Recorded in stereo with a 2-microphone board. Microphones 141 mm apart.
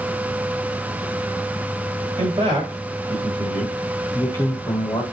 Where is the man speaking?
40° right (ahead or behind), 1.8 m; by 5.0 s 35° left (ahead or behind), 1.6 m.